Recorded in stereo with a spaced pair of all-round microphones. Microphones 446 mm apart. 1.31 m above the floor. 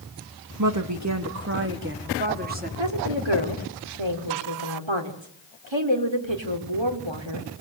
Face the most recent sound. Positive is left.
turn(degrees=-80)